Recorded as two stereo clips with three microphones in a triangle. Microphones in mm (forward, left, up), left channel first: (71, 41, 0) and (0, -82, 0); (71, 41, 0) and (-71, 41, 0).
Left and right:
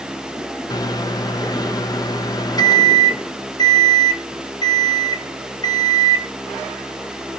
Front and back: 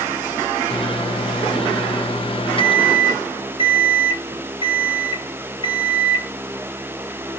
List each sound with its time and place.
0.7 s a microwave: 15° left, 0.6 m